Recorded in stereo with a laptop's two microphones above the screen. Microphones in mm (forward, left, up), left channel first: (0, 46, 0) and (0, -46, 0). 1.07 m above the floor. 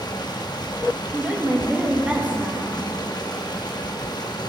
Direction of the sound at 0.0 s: 55° left (ahead or behind).